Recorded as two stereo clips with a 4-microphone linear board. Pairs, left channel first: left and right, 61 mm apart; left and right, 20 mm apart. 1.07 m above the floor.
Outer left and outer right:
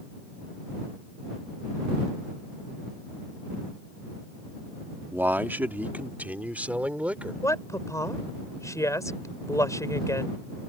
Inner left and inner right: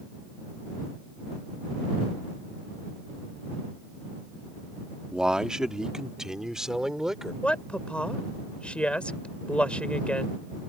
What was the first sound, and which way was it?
A man speaking, 35° right (ahead or behind).